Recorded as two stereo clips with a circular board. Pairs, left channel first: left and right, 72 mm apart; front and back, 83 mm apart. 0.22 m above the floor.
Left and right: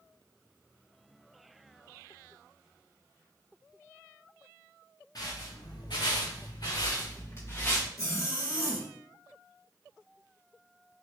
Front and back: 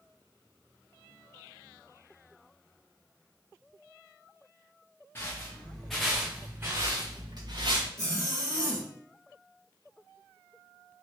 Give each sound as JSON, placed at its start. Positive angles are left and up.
{"t": 5.2, "sound": "footsteps", "azimuth_deg": 60, "distance_m": 1.2}
{"t": 8.0, "sound": "a zipper", "azimuth_deg": 130, "distance_m": 1.7}